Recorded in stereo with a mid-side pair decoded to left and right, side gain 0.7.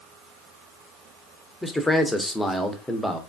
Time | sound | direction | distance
1.6 | a man speaking | 5° left | 0.6 m